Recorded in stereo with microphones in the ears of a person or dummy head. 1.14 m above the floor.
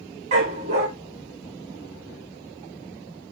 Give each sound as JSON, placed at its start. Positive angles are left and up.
{"t": 0.3, "sound": "a dog barking", "side_deg": -35, "distance_m": 0.8}